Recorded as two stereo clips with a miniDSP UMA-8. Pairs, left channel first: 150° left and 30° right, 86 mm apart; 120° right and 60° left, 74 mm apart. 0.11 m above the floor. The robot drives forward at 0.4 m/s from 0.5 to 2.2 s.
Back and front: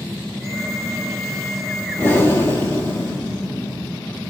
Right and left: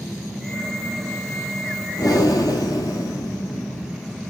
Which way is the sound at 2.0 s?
145° right.